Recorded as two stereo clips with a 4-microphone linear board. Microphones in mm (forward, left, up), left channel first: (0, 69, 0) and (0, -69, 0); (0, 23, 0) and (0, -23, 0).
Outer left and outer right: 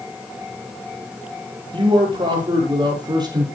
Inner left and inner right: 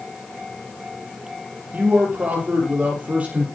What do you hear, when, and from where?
1.7 s a man speaking: 35° right (ahead or behind), 6 m; by 3.5 s 30° right (ahead or behind), 7 m